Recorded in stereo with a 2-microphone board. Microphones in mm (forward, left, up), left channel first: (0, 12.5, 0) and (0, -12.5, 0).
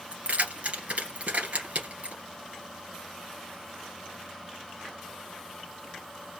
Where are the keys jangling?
60° right (ahead or behind), 2.5 m.